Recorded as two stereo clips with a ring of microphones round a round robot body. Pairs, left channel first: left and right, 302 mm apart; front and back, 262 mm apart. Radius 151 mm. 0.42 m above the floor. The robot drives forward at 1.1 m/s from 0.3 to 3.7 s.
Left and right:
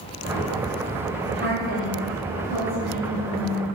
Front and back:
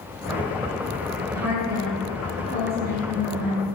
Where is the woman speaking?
135° right, 1.8 m; by 3.7 s 165° right, 4 m.